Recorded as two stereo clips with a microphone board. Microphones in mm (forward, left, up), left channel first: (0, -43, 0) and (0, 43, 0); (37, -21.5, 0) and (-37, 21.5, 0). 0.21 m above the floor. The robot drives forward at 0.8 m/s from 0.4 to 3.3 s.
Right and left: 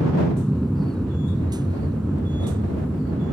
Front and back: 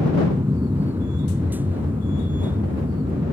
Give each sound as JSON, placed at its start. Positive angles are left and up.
{"t": 0.0, "sound": "an aircraft", "azimuth_deg": 180}